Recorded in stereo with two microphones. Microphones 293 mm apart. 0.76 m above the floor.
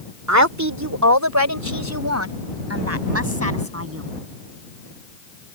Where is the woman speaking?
75° right (ahead or behind); by 4.1 s 55° right (ahead or behind).